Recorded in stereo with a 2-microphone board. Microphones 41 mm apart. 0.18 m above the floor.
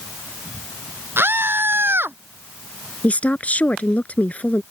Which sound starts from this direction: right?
A scream, at 1.2 s.